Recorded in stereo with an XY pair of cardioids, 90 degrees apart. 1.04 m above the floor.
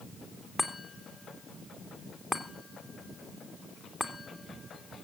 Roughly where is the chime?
Ahead.